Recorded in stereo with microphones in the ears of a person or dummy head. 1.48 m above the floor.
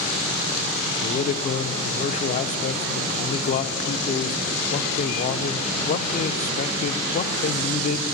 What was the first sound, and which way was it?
A man speaking, 40° left (ahead or behind).